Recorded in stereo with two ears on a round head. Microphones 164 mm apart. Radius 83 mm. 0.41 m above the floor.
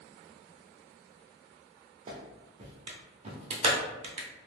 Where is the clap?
35° right (ahead or behind), 0.6 m.